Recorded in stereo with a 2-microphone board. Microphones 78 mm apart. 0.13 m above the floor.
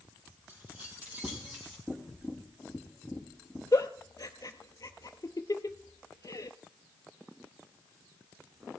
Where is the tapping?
5° right (ahead or behind), 2.5 m.